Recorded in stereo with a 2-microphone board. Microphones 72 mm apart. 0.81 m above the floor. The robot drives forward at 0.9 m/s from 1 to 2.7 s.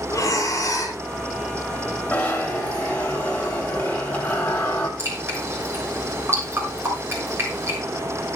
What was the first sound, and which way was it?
Breathing, 45° left (ahead or behind).